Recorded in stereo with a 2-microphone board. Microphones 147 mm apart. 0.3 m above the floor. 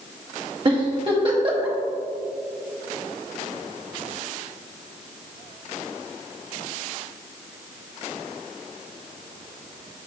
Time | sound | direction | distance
0.7 | a giggle | 35° right (ahead or behind) | 1.2 m